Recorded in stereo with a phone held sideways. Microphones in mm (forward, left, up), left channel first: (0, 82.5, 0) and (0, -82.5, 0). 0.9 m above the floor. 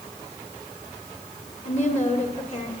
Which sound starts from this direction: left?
A woman speaking, at 1.6 s.